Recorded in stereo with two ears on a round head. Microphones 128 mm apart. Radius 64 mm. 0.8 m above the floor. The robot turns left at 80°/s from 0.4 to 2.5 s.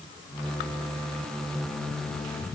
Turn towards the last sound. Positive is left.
No sound to turn to.